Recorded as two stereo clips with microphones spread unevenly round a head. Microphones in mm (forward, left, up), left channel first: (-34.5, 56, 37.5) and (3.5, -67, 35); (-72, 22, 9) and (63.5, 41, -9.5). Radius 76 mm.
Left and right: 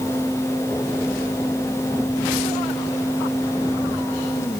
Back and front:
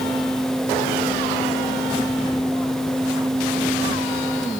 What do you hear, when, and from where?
Only background noise.